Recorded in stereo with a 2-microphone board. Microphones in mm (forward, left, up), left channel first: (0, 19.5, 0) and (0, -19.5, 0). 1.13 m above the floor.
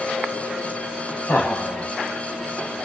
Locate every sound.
1.3 s laughter: 80° left, 2 m